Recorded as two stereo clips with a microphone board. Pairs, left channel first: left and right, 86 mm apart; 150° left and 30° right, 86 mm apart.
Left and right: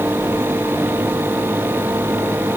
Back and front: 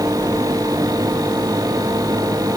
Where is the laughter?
I don't hear laughter.